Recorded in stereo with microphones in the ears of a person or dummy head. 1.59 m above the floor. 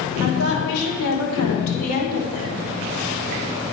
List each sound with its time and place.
0.2 s a woman speaking: 75° left (ahead or behind), 7 m; by 2.7 s 80° left, 5 m